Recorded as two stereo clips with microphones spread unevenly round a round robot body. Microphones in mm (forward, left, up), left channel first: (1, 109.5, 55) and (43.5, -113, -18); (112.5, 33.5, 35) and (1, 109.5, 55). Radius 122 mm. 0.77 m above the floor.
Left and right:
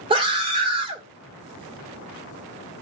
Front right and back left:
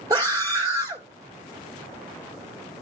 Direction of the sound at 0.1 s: 140° right.